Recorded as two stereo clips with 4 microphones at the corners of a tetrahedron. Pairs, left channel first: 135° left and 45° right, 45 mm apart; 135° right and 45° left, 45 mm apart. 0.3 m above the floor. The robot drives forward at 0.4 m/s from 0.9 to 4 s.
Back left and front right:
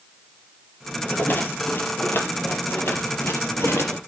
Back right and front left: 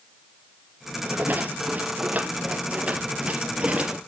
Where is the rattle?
95° left, 3 m; by 4.0 s 115° left, 3.5 m.